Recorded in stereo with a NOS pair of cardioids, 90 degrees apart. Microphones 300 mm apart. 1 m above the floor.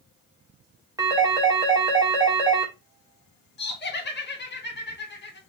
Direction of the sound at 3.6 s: 35° left.